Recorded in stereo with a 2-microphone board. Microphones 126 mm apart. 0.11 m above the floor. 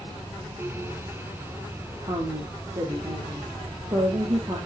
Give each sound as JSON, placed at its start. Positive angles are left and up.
{"t": 2.0, "sound": "a woman speaking", "side_deg": -40, "distance_m": 3.5}